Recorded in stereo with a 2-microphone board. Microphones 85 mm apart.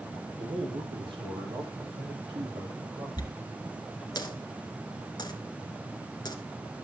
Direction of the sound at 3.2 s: 50° left (ahead or behind).